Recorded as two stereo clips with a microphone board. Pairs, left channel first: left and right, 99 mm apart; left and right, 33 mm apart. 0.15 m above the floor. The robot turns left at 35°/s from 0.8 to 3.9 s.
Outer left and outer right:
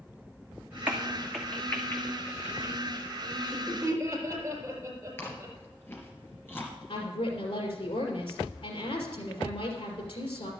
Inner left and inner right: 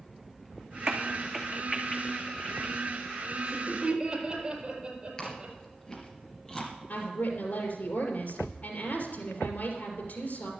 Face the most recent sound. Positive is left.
turn(degrees=65)  # may be behind; listen again after turning